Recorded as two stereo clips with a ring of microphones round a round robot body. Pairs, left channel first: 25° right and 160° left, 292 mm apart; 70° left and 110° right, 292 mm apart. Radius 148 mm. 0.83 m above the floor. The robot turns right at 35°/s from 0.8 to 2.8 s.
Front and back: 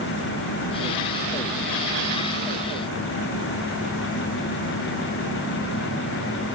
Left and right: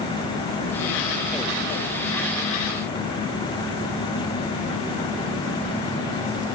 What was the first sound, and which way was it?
Only background noise.